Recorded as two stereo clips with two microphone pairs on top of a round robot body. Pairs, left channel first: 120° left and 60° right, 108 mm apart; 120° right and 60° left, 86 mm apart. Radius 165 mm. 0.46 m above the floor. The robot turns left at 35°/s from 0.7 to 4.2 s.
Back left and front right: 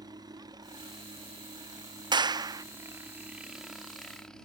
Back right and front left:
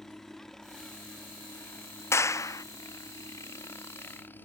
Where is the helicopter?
40° right; by 4.5 s 165° right.